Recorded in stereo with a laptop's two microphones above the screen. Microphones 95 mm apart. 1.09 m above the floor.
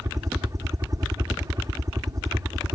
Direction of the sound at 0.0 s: 35° right (ahead or behind).